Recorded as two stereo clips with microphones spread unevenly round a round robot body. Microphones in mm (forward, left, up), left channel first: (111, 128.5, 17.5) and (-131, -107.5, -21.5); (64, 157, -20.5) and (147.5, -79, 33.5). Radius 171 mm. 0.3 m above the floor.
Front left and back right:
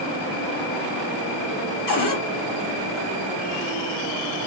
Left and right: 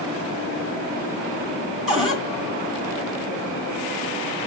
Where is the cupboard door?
25° left, 2 m.